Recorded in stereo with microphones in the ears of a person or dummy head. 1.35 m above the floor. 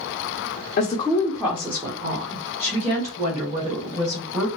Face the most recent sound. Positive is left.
turn(degrees=-40)  # may be behind; listen again after turning